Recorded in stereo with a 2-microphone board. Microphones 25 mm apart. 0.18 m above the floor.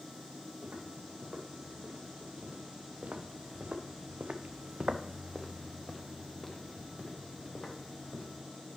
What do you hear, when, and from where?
0.6 s footsteps: 65° right (ahead or behind), 4.5 m; by 8.4 s 35° left (ahead or behind), 3.5 m